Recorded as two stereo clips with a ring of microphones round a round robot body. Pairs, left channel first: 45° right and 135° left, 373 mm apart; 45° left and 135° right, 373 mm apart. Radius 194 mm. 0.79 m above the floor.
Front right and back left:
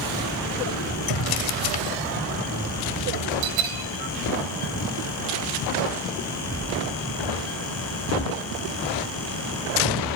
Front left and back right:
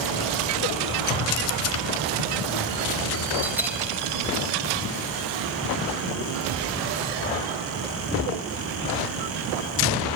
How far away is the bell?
About 3 m.